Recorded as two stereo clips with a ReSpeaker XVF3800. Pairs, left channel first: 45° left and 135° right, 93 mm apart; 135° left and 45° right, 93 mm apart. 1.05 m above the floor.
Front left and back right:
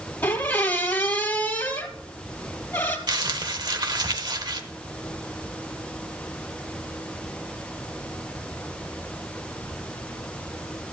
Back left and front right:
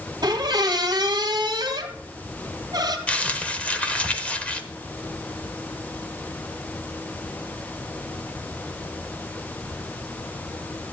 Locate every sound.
0.2 s a squeak: 20° right, 1.8 m
3.1 s crumpling: 150° right, 1.0 m